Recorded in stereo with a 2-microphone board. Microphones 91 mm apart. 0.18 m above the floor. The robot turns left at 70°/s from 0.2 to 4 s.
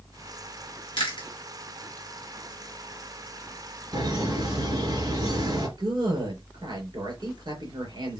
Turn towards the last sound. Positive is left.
turn(degrees=-50)  # may be behind; listen again after turning